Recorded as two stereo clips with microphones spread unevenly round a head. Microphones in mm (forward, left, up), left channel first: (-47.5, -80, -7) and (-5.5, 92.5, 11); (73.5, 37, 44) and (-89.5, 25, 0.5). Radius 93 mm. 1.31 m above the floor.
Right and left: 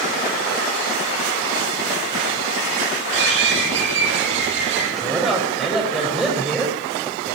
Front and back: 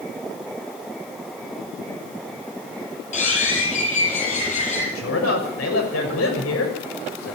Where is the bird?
45° left, 8 m.